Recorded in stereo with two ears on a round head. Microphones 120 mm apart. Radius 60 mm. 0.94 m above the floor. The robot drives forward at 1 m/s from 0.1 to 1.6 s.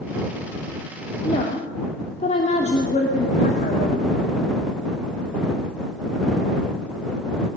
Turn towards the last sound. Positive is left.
turn(degrees=55)  # may be behind; listen again after turning